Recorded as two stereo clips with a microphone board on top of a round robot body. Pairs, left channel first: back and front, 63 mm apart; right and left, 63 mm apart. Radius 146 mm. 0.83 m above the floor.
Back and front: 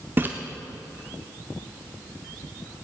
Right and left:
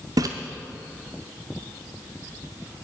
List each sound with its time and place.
0.2 s a splash: 60° left, 0.6 m